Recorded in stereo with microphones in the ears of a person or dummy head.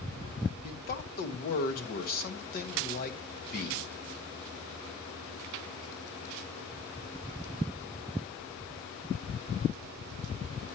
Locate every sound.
0.6 s a man speaking: 45° left (ahead or behind), 1.2 m